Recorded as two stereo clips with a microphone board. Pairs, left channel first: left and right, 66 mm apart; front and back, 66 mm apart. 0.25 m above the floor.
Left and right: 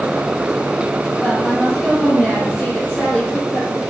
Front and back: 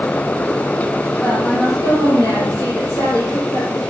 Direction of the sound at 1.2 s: 10° left.